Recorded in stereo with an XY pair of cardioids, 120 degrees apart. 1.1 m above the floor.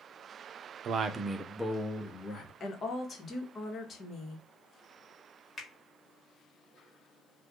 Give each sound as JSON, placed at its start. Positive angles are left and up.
{"t": 0.8, "sound": "a man speaking", "azimuth_deg": -60, "distance_m": 0.6}
{"t": 2.6, "sound": "a woman speaking", "azimuth_deg": 40, "distance_m": 1.2}
{"t": 5.6, "sound": "a finger snap", "azimuth_deg": 30, "distance_m": 1.5}